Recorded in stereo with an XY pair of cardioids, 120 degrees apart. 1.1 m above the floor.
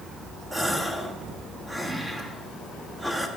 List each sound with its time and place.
0.5 s a gasp: 5° right, 1.3 m